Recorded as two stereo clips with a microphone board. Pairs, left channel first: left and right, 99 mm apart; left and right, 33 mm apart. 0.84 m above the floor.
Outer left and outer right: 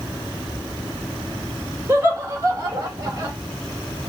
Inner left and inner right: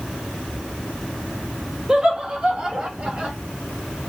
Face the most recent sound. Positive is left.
turn(degrees=-35)  # may be behind; listen again after turning